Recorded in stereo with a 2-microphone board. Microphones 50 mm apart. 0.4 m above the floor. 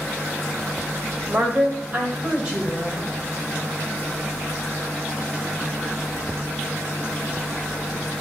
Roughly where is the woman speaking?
Right.